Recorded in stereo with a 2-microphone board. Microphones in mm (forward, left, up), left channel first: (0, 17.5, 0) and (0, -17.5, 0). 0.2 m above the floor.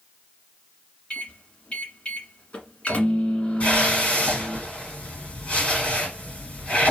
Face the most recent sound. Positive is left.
turn(degrees=45)  # may be behind; listen again after turning